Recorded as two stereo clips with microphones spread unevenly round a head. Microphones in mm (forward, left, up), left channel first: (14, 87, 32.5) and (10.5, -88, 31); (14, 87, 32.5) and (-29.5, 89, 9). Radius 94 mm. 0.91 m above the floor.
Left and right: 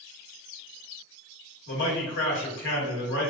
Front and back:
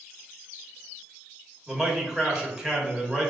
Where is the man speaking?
105° left, 1.9 m.